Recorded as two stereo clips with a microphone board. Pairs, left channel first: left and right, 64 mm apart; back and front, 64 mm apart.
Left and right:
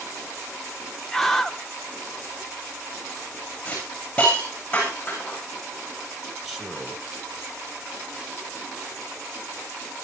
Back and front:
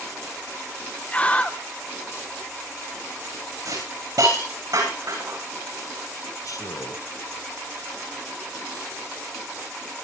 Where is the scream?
165° left, 0.7 m.